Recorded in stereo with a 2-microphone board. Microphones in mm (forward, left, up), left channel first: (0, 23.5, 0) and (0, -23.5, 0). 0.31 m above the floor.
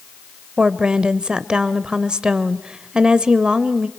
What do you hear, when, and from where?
0.6 s a woman speaking: 20° right (ahead or behind), 0.8 m